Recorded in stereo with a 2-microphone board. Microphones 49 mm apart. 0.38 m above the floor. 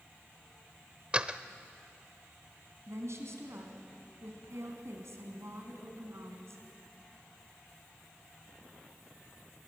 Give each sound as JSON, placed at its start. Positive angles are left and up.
{"t": 1.1, "sound": "a door slam", "side_deg": -25, "distance_m": 0.7}
{"t": 2.9, "sound": "a woman speaking", "side_deg": -70, "distance_m": 3.5}